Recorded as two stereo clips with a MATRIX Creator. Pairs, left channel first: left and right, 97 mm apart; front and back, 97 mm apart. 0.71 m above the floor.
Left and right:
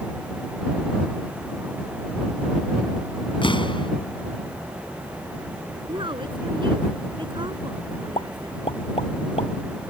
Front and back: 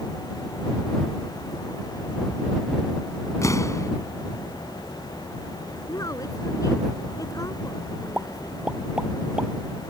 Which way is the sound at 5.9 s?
55° right.